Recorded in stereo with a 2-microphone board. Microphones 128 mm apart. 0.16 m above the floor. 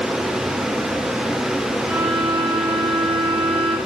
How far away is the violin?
About 8.5 m.